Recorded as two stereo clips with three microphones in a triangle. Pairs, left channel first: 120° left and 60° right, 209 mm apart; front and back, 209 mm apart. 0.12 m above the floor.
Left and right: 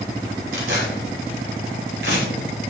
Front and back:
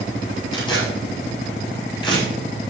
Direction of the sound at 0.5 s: 65° right.